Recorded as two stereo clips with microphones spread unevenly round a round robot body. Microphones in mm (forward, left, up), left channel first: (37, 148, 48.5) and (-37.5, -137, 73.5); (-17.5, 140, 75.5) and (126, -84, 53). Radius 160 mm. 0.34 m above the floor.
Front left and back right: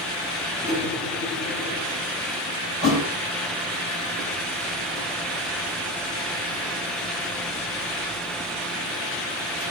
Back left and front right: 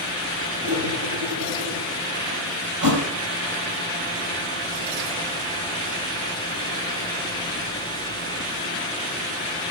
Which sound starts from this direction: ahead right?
A thud, at 2.8 s.